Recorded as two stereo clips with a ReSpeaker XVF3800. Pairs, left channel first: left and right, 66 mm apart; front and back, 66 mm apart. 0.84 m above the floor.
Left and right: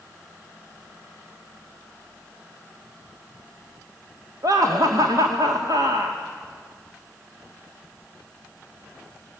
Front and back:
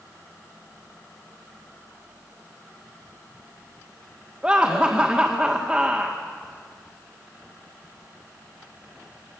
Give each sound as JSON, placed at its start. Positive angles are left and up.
{"t": 4.4, "sound": "laughter", "azimuth_deg": -105, "distance_m": 2.0}